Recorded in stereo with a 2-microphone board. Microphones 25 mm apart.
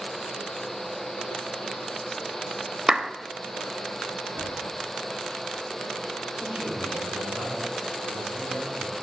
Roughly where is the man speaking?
Right.